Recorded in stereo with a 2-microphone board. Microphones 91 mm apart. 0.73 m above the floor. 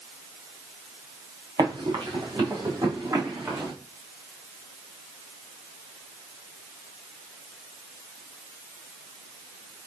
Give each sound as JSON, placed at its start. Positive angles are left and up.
{"t": 1.6, "sound": "running footsteps", "side_deg": -60, "distance_m": 4.5}